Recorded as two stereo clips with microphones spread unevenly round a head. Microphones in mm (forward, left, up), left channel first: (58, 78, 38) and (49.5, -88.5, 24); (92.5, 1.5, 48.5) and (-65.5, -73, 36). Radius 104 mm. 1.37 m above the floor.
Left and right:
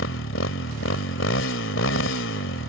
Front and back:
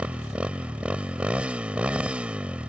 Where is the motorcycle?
120° left.